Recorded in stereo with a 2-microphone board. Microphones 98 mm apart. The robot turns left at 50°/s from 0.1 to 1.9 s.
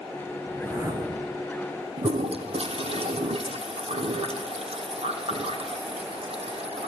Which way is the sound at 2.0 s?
75° right (ahead or behind).